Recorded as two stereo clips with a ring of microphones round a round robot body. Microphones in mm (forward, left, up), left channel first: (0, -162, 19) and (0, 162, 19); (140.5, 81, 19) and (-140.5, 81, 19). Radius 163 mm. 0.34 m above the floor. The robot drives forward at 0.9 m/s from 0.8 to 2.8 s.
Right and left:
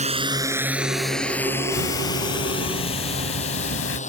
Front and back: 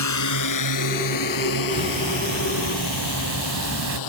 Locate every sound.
0.0 s a drone: 20° left; by 4.1 s 20° right
1.7 s ticking: 105° right; by 4.0 s 135° right